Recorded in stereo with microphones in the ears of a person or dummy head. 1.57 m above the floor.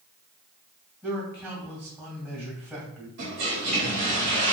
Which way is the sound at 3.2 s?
50° right (ahead or behind).